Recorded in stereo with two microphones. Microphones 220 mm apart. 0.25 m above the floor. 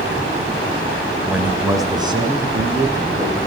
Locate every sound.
1.2 s a man speaking: centre (ahead or behind), 1.1 m; by 3.4 s 25° right (ahead or behind), 3.5 m